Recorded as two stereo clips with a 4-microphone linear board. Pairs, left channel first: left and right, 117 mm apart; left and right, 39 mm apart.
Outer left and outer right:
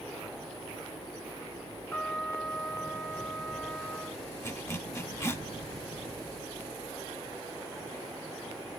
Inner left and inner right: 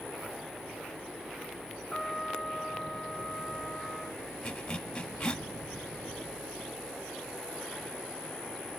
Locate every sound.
1.9 s a trumpet: 15° left (ahead or behind), 1.0 m
4.4 s a zipper: 20° left (ahead or behind), 0.6 m